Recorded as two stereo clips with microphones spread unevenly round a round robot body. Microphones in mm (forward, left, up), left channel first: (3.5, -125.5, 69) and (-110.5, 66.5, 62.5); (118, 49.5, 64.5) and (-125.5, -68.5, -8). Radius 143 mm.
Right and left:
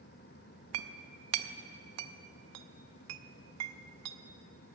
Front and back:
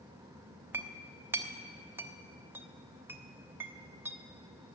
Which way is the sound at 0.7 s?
125° left.